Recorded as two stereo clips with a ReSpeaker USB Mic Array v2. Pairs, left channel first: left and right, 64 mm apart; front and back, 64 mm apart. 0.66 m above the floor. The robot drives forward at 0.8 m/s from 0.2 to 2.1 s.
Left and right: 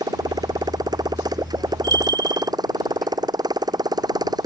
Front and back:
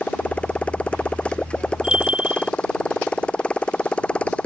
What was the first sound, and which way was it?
A motorcycle, 75° right.